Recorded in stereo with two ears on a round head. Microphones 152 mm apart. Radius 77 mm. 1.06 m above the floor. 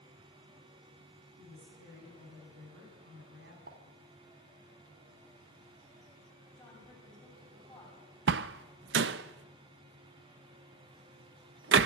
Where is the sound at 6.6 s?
5° left (ahead or behind), 7.5 m.